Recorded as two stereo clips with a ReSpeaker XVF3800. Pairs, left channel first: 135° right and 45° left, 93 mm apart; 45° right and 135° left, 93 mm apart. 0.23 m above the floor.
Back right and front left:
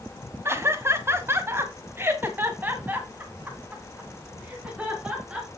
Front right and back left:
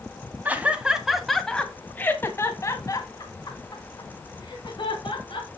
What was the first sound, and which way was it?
Laughter, 80° left.